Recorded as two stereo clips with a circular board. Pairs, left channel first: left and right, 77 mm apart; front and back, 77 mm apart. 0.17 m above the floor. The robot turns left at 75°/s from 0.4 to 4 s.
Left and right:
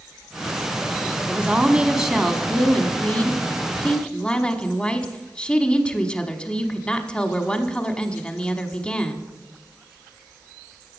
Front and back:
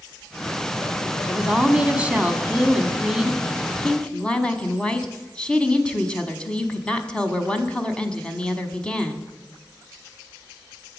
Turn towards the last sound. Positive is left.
turn(degrees=50)